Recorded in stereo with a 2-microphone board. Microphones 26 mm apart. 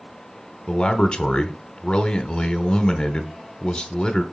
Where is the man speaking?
35° left (ahead or behind), 0.9 m.